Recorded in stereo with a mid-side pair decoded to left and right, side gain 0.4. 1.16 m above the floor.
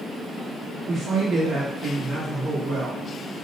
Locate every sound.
0.9 s a man speaking: 60° right, 1.2 m